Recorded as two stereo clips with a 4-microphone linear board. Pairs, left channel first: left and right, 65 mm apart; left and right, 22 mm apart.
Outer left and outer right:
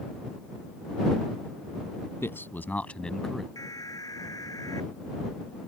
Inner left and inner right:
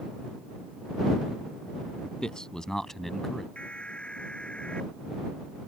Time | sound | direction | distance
2.2 | a man speaking | 40° left (ahead or behind) | ?
3.5 | an alarm | 70° left (ahead or behind) | ?